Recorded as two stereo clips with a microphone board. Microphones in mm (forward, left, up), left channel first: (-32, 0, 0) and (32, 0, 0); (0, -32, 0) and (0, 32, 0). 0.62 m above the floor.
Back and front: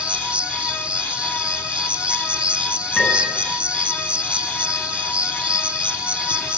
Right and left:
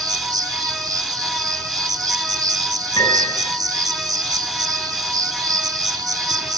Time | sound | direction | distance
0.0 | an insect | 70° left | 0.9 m
3.0 | a piano | 100° right | 8 m